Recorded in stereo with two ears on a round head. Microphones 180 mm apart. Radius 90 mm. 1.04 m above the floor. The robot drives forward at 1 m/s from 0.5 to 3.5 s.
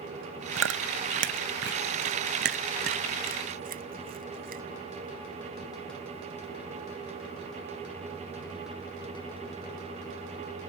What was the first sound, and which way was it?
Chewing, 75° right (ahead or behind).